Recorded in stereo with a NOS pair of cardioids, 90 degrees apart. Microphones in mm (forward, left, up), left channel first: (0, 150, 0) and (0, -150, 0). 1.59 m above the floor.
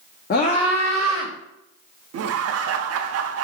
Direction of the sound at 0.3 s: 35° left.